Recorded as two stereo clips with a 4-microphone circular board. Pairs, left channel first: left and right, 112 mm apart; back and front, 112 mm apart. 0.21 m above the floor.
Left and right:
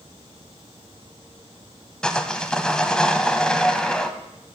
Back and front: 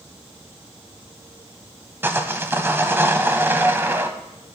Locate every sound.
2.0 s sawing: 20° left, 0.7 m